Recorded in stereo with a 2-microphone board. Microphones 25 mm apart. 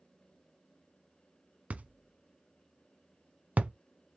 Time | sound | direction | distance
1.7 | a thud | 75° right (ahead or behind) | 0.6 m